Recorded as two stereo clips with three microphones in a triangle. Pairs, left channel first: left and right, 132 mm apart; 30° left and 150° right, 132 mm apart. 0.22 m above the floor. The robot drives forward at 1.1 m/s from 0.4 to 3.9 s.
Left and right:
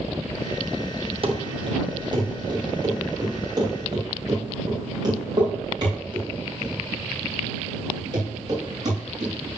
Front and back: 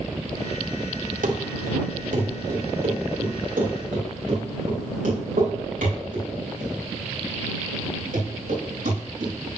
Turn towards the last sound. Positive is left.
turn(degrees=-145)